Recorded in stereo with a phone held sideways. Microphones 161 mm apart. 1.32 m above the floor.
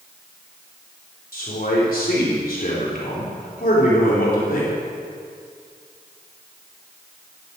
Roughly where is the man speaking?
Left.